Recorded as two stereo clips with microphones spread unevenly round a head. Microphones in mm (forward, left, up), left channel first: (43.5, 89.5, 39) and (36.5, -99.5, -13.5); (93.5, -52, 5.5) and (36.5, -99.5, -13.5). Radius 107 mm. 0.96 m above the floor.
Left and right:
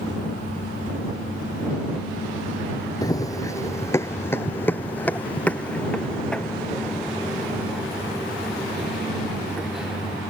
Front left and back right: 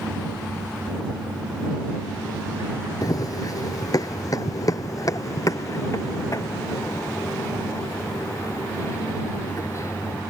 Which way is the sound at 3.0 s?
25° left.